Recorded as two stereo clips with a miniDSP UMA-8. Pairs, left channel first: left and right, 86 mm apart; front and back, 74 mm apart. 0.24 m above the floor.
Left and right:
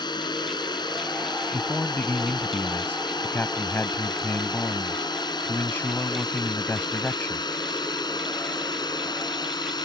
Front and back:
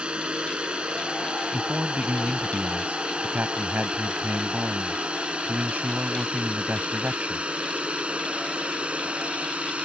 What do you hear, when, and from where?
0.0 s a drone: 105° left; by 9.9 s 110° left
1.5 s a man speaking: 130° left